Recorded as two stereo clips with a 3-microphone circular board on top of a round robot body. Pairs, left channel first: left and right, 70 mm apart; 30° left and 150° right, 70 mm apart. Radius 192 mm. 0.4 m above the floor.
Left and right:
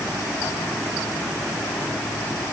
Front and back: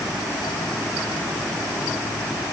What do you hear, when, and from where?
Only background noise.